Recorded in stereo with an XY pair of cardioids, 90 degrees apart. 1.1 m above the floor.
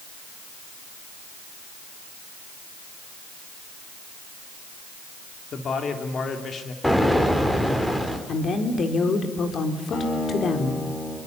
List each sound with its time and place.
5.5 s a man speaking: 55° left, 3.5 m
6.8 s an explosion: 10° left, 4.5 m
8.3 s a woman speaking: 55° left, 4 m
9.9 s a guitar: 65° left, 9 m